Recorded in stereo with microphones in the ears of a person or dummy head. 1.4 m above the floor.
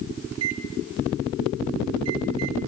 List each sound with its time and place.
0.3 s a microwave: 85° right, 3.5 m